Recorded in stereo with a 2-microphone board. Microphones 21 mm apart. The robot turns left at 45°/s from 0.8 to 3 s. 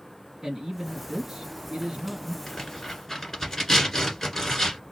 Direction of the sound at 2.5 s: 20° left (ahead or behind).